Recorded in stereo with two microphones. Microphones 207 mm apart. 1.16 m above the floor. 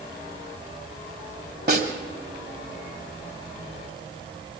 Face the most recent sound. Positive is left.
turn(degrees=-50)  # may be behind; listen again after turning